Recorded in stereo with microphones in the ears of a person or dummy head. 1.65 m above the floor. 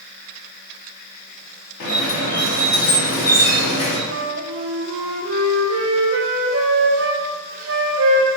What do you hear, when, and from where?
1.8 s a squeak: 50° left (ahead or behind), 1.0 m
4.1 s a flute: 70° right (ahead or behind), 0.5 m